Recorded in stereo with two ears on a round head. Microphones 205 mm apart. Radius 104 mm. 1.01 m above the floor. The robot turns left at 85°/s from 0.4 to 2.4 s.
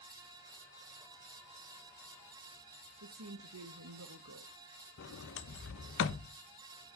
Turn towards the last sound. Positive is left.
turn(degrees=55)  # may be behind; listen again after turning